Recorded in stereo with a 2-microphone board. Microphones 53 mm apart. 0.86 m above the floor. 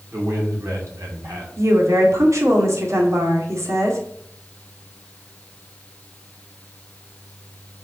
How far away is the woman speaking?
About 2 m.